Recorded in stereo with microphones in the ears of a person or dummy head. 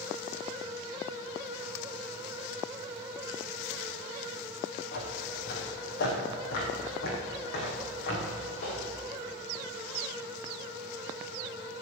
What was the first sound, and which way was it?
Footsteps, 50° left (ahead or behind).